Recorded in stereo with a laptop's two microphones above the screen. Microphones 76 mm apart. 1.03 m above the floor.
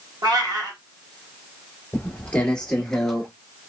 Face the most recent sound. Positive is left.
turn(degrees=5)  # may be behind; listen again after turning